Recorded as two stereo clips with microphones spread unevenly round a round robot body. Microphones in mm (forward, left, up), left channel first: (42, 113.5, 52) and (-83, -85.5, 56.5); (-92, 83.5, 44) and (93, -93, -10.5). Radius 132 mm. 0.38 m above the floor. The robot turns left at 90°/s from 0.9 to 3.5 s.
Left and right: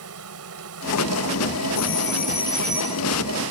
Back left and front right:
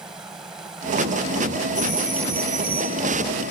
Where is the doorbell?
50° left; by 3.0 s 65° right.